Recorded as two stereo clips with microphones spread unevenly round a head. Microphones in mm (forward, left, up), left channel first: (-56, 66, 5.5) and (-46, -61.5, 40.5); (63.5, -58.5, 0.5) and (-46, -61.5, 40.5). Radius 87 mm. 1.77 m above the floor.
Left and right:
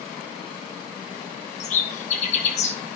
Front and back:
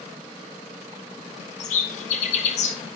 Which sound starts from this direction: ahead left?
A bird, at 1.6 s.